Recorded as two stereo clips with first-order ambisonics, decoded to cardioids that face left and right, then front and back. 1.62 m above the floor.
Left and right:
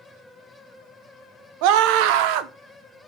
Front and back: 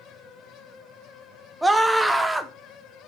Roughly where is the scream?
Right.